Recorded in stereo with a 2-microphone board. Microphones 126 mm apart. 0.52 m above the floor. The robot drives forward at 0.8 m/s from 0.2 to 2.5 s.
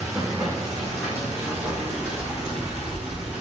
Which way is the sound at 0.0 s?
25° right (ahead or behind).